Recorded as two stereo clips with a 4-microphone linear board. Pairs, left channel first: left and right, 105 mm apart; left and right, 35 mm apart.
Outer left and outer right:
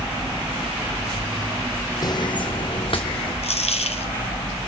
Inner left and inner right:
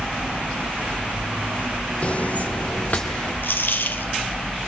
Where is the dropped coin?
80° left, 1.0 m.